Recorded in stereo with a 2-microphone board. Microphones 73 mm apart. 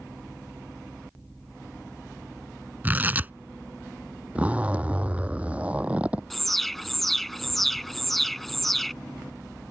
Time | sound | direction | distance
2.8 | tearing paper | 25° right (ahead or behind) | ?
4.3 | a zipper | 20° right (ahead or behind) | ?
6.3 | an alarm | 5° left (ahead or behind) | ?